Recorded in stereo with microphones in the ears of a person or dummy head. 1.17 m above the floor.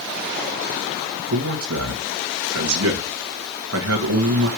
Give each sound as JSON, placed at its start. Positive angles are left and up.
{"t": 1.3, "sound": "a man speaking", "side_deg": -75, "distance_m": 2.0}